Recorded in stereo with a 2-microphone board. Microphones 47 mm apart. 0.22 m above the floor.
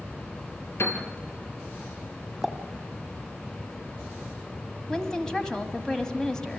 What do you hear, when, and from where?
0.8 s a piano: 60° left (ahead or behind), 3 m
2.4 s a pop: 10° right (ahead or behind), 1.2 m
4.9 s a woman speaking: 15° left (ahead or behind), 1.6 m